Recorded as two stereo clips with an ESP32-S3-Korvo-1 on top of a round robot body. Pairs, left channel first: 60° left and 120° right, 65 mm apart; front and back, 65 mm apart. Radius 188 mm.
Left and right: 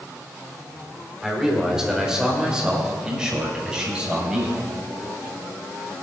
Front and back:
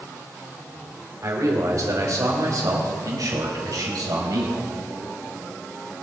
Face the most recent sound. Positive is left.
turn(degrees=165)